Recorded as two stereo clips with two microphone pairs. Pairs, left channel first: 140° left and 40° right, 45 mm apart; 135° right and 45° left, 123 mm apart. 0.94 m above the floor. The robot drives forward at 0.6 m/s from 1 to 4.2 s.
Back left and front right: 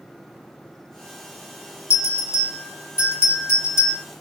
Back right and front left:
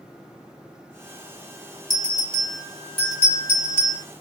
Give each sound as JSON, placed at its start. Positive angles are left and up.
{"t": 1.9, "sound": "a bell", "azimuth_deg": 135, "distance_m": 1.8}